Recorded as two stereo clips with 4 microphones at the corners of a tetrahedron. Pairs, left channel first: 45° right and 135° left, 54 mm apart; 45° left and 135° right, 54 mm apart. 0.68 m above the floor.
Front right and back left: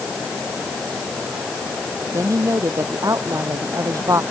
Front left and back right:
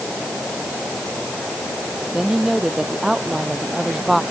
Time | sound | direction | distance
2.1 | a woman speaking | 145° left | ?